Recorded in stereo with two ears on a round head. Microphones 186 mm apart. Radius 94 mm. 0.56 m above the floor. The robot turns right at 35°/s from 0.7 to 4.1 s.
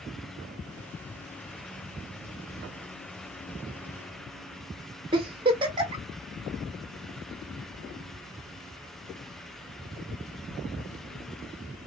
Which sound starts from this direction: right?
A giggle, at 5.1 s.